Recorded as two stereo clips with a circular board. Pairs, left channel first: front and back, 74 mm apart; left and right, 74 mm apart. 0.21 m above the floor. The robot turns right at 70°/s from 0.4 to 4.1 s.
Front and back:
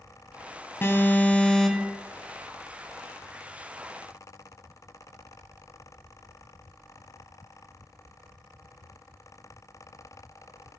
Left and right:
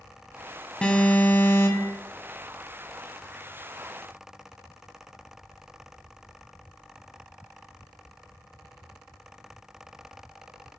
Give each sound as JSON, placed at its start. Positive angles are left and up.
{"t": 0.8, "sound": "an alarm", "azimuth_deg": 25, "distance_m": 2.0}